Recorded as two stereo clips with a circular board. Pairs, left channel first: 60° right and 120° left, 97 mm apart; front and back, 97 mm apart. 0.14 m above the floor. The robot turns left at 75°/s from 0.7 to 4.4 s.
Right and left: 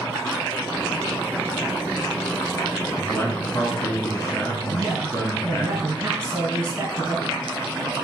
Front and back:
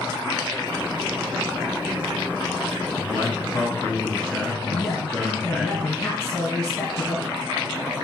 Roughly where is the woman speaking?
Ahead left.